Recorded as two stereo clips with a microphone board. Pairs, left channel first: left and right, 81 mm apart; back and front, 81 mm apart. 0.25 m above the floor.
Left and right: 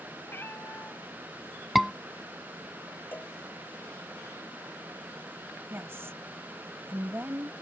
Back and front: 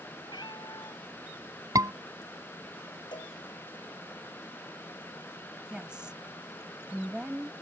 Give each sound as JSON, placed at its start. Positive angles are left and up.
{"t": 0.3, "sound": "a cat meowing", "azimuth_deg": 150}
{"t": 1.8, "sound": "a scream", "azimuth_deg": 0}
{"t": 3.1, "sound": "a cowbell", "azimuth_deg": 155}
{"t": 5.7, "sound": "a woman speaking", "azimuth_deg": -70}